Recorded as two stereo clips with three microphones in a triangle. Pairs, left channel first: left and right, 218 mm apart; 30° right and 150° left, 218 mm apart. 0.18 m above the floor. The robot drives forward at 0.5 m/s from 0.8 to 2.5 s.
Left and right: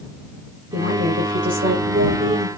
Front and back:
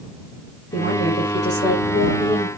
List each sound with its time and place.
0.7 s a woman speaking: 65° right, 5.5 m; by 2.5 s 70° right, 5 m